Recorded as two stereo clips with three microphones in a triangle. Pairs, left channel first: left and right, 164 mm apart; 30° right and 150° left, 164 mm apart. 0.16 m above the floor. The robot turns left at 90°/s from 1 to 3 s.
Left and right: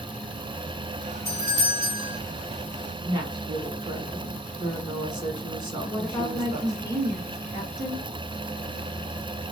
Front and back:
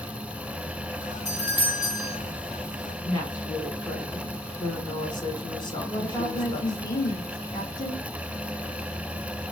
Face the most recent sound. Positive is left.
turn(degrees=25)